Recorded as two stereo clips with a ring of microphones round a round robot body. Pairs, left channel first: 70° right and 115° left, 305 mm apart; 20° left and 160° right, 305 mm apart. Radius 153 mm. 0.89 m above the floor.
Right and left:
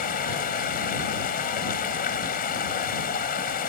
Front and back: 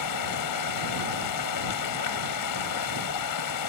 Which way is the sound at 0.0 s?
5° right.